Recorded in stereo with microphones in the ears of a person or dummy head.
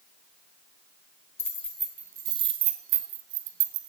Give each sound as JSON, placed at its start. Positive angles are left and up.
{"t": 1.4, "sound": "keys jangling", "side_deg": 15, "distance_m": 1.4}